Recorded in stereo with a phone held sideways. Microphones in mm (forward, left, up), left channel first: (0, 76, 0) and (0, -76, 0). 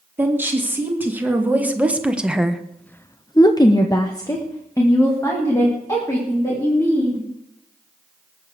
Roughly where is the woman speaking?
Centre.